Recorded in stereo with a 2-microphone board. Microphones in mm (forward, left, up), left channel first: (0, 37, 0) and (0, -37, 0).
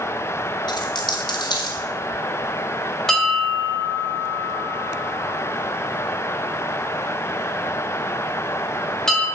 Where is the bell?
5° left (ahead or behind), 1.3 m.